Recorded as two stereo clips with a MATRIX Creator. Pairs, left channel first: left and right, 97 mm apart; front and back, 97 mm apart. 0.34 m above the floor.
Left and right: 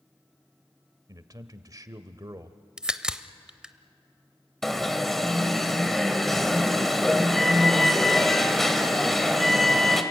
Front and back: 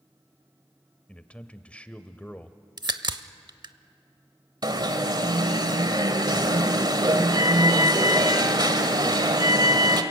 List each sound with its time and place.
1.1 s a man speaking: 70° right, 1.0 m
2.8 s a crack: 170° right, 0.7 m
4.6 s an alarm: 175° left, 1.4 m